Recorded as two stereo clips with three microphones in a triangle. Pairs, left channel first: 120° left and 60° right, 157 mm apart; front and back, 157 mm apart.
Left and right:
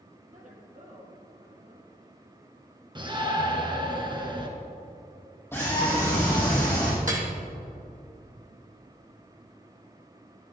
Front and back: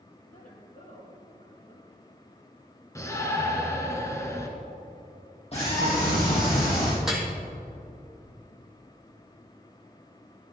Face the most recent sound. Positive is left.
turn(degrees=-95)